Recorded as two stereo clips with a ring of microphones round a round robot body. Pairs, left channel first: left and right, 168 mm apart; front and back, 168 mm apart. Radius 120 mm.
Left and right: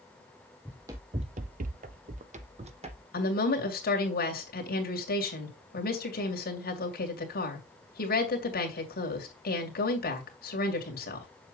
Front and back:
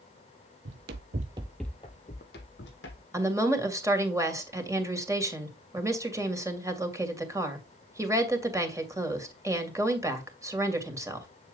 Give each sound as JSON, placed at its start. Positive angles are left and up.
{"t": 0.7, "sound": "running footsteps", "azimuth_deg": -175, "distance_m": 0.8}
{"t": 3.1, "sound": "a woman speaking", "azimuth_deg": 110, "distance_m": 2.5}